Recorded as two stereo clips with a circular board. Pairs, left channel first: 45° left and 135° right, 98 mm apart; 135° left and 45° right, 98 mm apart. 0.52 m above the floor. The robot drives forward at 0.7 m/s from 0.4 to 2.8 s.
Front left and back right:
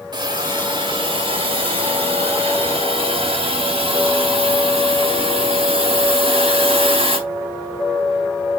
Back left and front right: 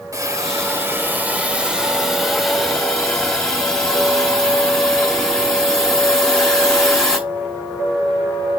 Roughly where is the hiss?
Right.